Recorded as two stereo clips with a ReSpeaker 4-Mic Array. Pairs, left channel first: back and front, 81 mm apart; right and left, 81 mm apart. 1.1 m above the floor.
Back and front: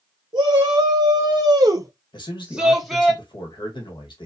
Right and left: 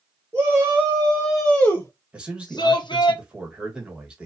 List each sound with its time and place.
0.3 s a shout: 25° left, 0.9 m; by 3.1 s 95° right, 0.8 m
2.1 s a man speaking: 165° left, 1.1 m